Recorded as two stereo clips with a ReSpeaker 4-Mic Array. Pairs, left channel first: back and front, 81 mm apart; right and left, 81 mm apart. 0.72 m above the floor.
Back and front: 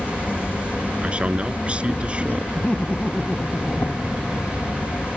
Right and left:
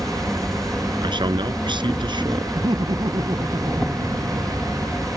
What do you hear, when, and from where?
0.0 s an insect: 170° right
1.0 s a man speaking: 75° left
2.5 s laughter: 105° left